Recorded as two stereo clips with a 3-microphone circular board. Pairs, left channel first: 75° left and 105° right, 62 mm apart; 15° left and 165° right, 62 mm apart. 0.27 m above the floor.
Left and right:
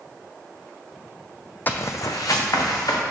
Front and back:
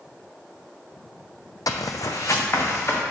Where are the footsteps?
15° left, 0.6 m; by 3.0 s 65° left, 2 m.